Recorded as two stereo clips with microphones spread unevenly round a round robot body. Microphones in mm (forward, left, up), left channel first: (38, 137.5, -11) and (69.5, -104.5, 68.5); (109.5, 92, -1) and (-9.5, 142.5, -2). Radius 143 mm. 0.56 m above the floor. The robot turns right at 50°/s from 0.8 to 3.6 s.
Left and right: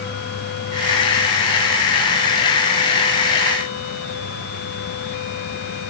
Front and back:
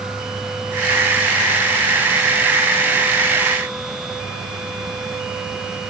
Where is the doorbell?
No doorbell in this recording.